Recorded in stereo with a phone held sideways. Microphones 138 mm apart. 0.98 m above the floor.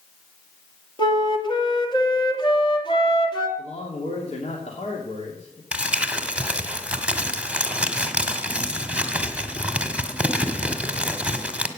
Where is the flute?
35° left (ahead or behind), 2.5 m.